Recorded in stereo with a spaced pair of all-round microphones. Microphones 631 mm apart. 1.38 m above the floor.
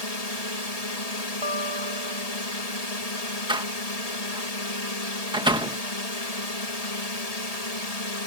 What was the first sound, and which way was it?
A drone, 75° left (ahead or behind).